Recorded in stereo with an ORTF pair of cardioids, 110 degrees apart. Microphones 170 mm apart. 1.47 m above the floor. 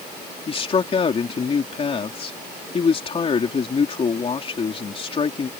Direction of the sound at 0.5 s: 35° left.